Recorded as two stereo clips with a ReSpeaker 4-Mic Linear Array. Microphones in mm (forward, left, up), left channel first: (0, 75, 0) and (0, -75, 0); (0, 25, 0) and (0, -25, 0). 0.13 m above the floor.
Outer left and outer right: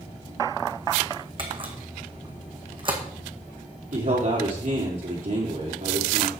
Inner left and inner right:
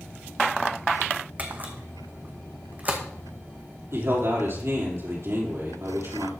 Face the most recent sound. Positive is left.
turn(degrees=-60)  # may be behind; listen again after turning